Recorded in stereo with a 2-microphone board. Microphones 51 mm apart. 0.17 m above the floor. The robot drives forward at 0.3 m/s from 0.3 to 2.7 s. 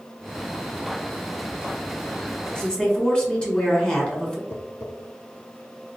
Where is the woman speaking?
20° left (ahead or behind), 1.3 m.